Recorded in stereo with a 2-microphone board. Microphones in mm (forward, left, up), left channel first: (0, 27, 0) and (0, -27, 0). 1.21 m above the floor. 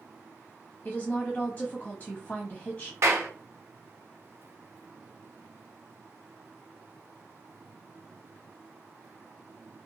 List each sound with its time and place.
0.8 s a woman speaking: 15° left (ahead or behind), 0.6 m
3.0 s a clap: 50° right (ahead or behind), 1.0 m